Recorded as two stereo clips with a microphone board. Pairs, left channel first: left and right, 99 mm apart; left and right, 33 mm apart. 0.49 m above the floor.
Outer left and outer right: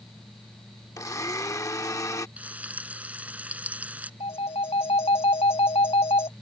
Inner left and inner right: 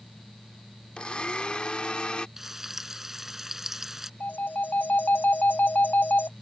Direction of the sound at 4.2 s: 75° left (ahead or behind).